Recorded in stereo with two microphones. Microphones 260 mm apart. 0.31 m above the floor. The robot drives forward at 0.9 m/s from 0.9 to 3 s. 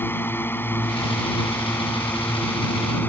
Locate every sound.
0.0 s a drone: 10° left (ahead or behind); by 3.1 s 5° left (ahead or behind)